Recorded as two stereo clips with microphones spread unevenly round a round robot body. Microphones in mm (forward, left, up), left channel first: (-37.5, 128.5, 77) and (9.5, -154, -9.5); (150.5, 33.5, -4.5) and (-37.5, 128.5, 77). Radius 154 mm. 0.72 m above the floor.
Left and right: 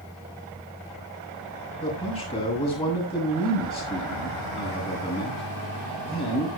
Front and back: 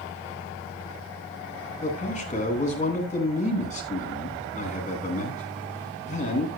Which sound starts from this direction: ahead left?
A man speaking, at 1.8 s.